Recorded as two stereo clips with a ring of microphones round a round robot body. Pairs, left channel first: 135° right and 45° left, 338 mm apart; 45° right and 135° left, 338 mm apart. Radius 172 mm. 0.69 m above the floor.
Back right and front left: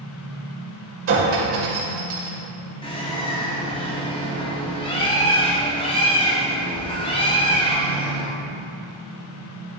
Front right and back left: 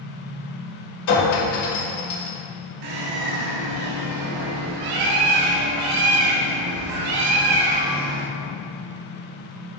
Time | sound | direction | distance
1.1 | a clink | 10° right | 2 m
2.8 | a bird | 150° left | 1.1 m